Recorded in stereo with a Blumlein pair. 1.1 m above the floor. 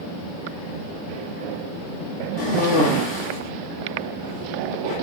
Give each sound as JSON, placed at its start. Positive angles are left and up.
{"t": 2.4, "sound": "a cough", "azimuth_deg": 60, "distance_m": 2.5}